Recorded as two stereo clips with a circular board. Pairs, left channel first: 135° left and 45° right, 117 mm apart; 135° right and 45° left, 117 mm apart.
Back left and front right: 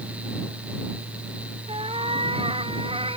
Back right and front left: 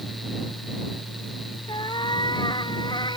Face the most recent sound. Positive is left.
turn(degrees=-85)